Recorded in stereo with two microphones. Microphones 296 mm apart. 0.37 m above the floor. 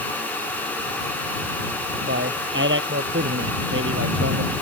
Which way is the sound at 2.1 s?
40° right (ahead or behind).